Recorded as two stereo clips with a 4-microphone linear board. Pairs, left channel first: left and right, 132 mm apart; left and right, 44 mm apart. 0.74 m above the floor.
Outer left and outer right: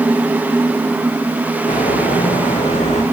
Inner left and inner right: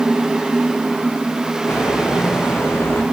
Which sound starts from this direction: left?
Footsteps, at 1.7 s.